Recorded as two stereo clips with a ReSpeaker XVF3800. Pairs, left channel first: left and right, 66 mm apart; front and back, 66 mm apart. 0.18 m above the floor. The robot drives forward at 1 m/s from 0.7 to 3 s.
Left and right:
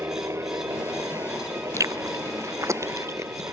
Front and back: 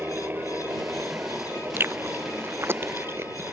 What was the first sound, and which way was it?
A helicopter, 125° right.